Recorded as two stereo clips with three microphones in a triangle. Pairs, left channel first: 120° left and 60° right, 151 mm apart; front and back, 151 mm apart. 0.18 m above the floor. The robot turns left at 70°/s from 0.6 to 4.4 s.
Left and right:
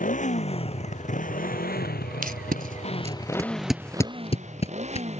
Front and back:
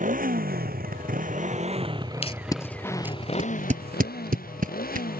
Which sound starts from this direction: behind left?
A motorcycle, at 0.0 s.